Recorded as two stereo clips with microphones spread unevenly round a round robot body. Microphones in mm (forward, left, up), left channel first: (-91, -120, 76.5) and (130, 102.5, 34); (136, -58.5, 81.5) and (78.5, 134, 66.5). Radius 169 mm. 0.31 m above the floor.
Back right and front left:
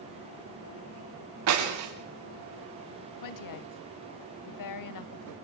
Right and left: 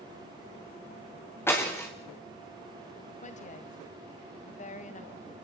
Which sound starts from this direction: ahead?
Breaking glass, at 1.5 s.